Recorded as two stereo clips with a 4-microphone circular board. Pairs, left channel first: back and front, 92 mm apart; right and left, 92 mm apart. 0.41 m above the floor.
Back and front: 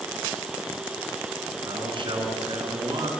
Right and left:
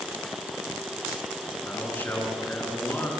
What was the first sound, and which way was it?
A man speaking, 20° right.